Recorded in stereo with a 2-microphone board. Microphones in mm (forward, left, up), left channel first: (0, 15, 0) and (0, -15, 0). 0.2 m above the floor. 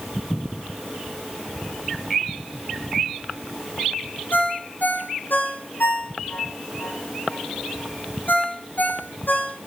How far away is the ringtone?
About 4 m.